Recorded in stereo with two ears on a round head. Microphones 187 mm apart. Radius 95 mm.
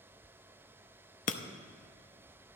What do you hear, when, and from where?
1.3 s breaking glass: 35° left (ahead or behind), 0.7 m